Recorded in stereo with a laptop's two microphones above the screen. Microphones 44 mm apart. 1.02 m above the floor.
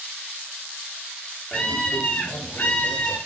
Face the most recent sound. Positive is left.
turn(degrees=40)  # may be behind; listen again after turning